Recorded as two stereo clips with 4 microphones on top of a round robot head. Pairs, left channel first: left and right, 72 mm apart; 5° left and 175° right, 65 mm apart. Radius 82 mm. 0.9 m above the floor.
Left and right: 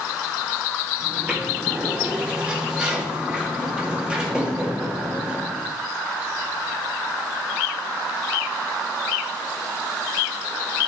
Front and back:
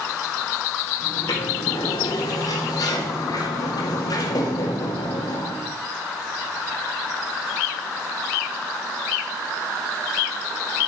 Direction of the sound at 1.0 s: 15° right.